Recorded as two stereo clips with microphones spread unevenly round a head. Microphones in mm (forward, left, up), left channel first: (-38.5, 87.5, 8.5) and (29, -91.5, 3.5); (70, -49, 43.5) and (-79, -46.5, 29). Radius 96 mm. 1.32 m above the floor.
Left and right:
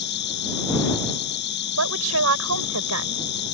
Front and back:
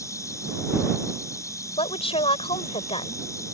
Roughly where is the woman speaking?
Ahead right.